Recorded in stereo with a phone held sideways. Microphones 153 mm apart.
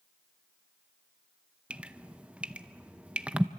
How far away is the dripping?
About 0.6 m.